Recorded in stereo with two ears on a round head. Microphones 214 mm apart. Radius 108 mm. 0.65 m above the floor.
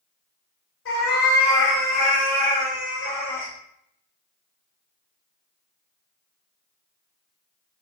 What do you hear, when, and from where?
0.8 s a cat meowing: 60° left (ahead or behind), 1.2 m; by 3.5 s 20° left (ahead or behind), 1.3 m